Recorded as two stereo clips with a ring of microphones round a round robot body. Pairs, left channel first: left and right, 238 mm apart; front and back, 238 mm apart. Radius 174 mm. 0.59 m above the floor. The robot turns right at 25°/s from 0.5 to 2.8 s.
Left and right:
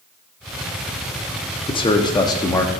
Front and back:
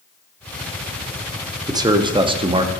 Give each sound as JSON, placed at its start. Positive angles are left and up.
{"t": 1.7, "sound": "a man speaking", "azimuth_deg": 125, "distance_m": 0.6}